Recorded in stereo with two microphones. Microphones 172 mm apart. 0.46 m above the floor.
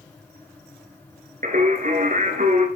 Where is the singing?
50° right (ahead or behind), 1.7 m.